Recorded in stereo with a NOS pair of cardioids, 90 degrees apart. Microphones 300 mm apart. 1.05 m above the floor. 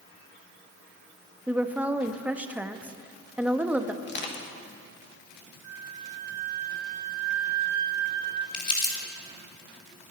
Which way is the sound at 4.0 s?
40° left.